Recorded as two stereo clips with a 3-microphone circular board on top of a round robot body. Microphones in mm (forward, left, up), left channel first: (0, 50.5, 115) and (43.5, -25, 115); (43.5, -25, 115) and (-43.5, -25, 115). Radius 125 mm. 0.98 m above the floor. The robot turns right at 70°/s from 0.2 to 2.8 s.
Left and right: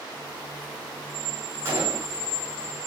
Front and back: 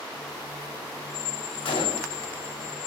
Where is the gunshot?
5° left, 3 m; by 2.2 s 40° left, 3 m.